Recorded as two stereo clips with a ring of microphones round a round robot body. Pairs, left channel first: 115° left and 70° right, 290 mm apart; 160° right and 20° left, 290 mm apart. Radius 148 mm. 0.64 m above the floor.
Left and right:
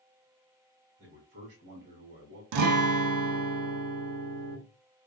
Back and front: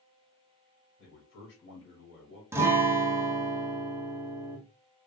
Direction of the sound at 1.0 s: 115° right.